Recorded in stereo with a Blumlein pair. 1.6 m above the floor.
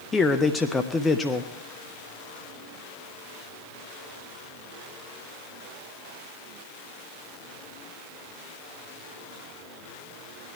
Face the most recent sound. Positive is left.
turn(degrees=15)